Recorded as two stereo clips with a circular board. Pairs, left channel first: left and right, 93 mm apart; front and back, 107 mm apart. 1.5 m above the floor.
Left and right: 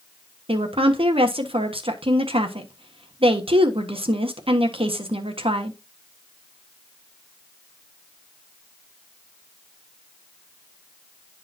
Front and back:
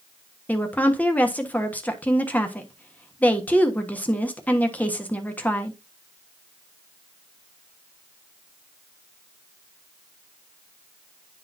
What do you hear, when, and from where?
0.5 s a woman speaking: 75° right, 1.2 m